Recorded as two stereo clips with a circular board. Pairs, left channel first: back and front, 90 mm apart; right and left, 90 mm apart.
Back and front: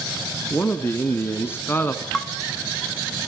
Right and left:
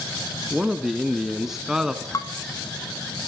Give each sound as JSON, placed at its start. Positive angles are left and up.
{"t": 0.5, "sound": "a man speaking", "azimuth_deg": 170, "distance_m": 1.2}
{"t": 2.1, "sound": "dishes clattering", "azimuth_deg": -95, "distance_m": 1.1}